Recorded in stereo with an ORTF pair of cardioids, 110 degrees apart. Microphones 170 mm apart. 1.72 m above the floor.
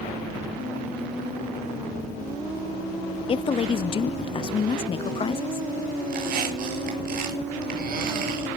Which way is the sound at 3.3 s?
30° left.